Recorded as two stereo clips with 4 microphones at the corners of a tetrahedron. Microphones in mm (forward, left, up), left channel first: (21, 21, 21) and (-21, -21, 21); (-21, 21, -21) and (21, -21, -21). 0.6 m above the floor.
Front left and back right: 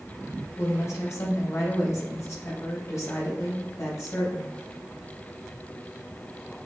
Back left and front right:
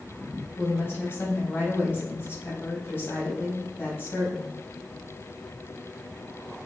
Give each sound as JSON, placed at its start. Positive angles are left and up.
{"t": 0.6, "sound": "a woman speaking", "azimuth_deg": 85, "distance_m": 3.5}